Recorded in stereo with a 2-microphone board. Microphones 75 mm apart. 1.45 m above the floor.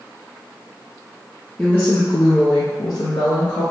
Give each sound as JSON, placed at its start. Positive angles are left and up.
{"t": 1.6, "sound": "a woman speaking", "side_deg": 15, "distance_m": 0.6}